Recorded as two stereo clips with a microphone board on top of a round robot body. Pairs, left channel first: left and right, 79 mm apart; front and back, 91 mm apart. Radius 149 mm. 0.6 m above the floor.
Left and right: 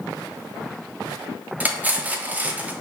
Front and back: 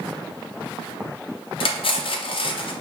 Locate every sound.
1.6 s cutlery clinking: 20° right, 0.7 m